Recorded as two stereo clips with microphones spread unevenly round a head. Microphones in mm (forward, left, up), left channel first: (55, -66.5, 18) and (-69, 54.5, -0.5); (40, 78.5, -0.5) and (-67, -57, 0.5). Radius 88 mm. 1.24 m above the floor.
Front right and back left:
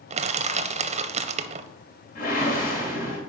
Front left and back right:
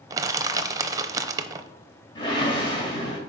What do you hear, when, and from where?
0.1 s crushing: 165° left, 0.6 m
2.1 s a whoosh: 10° right, 1.8 m